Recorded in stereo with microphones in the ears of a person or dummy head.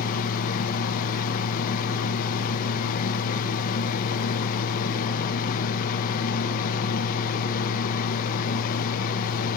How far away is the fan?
About 1.0 m.